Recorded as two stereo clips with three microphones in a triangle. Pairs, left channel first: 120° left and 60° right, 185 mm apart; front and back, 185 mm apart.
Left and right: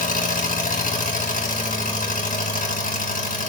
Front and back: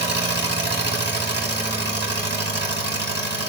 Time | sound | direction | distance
0.0 | an engine running | 165° left | 2.5 m